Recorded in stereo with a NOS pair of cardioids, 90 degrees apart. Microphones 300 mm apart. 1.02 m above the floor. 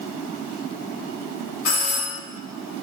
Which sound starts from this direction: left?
A doorbell, at 1.6 s.